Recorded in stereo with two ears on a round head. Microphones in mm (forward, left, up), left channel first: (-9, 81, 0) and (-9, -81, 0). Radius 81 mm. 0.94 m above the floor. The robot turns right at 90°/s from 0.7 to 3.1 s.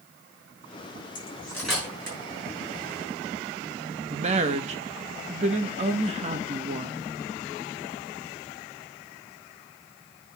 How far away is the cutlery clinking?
About 5 m.